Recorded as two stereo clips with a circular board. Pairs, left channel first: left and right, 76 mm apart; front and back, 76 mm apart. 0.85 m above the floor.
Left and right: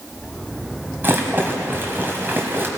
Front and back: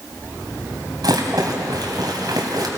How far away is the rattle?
About 2 m.